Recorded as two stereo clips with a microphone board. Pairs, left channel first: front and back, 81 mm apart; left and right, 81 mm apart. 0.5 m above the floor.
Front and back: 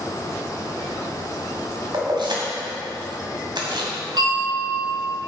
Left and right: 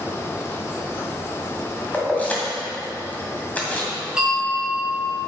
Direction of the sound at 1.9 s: 160° left.